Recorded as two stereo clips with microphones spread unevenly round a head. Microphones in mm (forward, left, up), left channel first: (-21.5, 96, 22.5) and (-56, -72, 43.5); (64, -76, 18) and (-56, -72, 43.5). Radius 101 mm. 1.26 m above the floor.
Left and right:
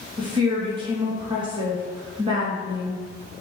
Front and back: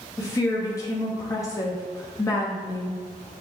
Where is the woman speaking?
40° right, 0.7 m.